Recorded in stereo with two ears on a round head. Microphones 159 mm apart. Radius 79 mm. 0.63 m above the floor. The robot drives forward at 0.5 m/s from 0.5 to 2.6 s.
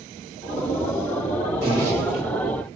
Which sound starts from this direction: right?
A zipper, at 1.6 s.